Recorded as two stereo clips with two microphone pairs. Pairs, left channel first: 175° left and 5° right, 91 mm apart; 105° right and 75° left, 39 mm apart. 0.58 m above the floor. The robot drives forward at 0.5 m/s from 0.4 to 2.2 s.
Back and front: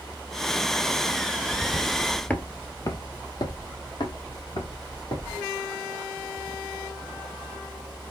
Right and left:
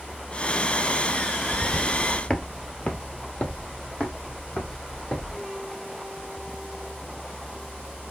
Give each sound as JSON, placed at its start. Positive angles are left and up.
{"t": 1.5, "sound": "footsteps", "azimuth_deg": -10, "distance_m": 0.8}